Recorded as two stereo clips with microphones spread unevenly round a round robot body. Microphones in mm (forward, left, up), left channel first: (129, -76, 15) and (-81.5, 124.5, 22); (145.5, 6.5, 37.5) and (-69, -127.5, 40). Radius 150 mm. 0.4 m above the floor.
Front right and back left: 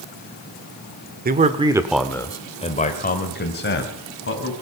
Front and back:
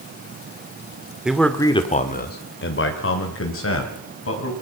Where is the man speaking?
130° left, 1.5 m; by 4.5 s 5° left, 4 m.